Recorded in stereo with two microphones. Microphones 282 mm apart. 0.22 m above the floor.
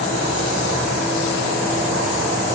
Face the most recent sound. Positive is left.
No sound to turn to.